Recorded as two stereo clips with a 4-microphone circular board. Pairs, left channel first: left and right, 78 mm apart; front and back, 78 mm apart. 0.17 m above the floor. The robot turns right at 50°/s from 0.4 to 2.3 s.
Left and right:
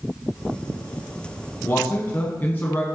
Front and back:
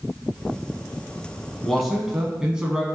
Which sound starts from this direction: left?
A man speaking, at 1.6 s.